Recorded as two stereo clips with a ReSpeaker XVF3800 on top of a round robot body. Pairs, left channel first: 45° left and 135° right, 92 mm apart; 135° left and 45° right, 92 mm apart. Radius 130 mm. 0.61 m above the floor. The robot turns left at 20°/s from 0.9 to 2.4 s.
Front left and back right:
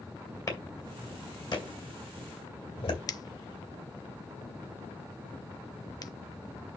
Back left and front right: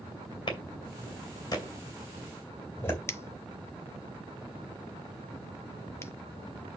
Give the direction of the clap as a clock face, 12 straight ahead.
9 o'clock.